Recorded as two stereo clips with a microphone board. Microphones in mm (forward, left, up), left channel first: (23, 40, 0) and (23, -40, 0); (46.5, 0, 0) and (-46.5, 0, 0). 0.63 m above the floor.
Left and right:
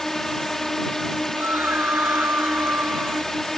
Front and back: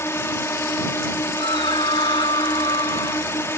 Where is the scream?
25° right.